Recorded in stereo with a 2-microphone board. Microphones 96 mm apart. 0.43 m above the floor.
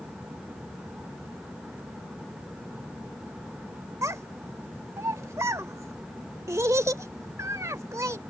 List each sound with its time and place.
4.0 s a child speaking: 30° right (ahead or behind)